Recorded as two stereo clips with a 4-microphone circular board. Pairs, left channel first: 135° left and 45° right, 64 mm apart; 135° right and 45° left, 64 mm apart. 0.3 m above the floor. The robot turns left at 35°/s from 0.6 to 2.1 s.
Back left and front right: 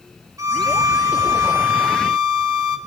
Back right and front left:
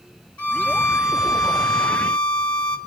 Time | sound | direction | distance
0.4 | a violin | 70° right | 2 m